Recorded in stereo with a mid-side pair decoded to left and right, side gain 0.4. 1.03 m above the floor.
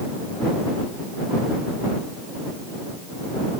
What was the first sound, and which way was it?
Only background noise.